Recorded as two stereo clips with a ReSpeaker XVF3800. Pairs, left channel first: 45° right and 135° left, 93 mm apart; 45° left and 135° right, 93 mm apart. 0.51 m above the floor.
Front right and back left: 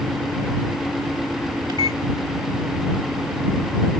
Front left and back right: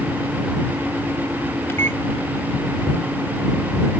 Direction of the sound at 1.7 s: 105° left.